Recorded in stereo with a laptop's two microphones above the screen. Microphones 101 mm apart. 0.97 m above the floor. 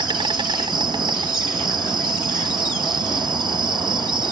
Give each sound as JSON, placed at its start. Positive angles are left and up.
{"t": 0.0, "sound": "an insect", "side_deg": -50}